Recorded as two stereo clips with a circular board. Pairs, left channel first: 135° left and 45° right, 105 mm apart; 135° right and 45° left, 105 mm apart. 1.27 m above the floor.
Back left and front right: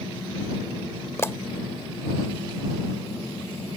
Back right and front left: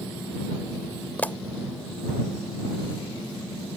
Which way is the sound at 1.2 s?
165° left.